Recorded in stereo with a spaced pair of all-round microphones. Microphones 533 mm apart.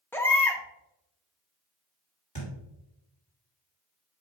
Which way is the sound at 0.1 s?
5° left (ahead or behind).